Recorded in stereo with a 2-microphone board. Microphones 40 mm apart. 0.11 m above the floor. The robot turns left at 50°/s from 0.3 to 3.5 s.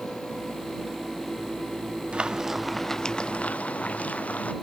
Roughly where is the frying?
Behind right.